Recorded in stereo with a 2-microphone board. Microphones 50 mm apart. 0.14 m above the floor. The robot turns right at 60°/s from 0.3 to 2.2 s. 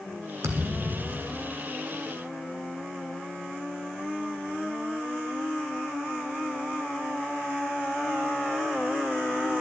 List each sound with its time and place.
0.4 s a thud: 75° right, 1.9 m; by 1.6 s 5° right, 1.9 m